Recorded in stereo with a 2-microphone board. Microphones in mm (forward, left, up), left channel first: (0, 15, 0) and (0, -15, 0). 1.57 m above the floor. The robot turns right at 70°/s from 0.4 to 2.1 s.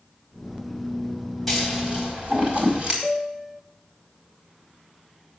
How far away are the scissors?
About 4.5 m.